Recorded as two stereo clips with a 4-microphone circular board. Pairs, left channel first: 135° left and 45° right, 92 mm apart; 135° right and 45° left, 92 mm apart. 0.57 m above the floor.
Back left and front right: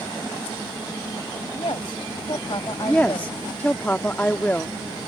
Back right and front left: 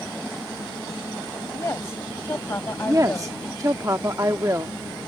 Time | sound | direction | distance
1.5 | a woman speaking | 165° left | ?
2.9 | a woman speaking | 70° left | ?